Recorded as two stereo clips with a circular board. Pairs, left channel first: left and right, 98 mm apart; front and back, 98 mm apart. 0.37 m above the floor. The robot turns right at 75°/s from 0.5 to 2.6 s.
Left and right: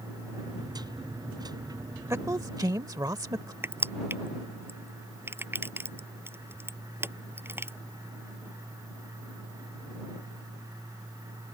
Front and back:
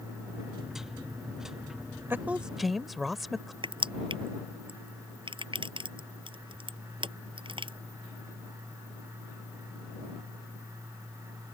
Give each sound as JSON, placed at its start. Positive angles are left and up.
{"t": 2.1, "sound": "a woman speaking", "azimuth_deg": -130}
{"t": 3.6, "sound": "crushing", "azimuth_deg": -155}